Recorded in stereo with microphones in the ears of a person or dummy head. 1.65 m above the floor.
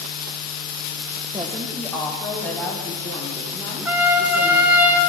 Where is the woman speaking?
25° right (ahead or behind), 1.2 m; by 4.8 s 15° left (ahead or behind), 5 m.